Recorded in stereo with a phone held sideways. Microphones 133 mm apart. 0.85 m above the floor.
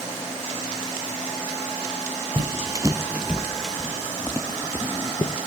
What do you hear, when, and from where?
2.4 s footsteps: 35° right (ahead or behind), 1.0 m; by 5.4 s 35° left (ahead or behind), 1.4 m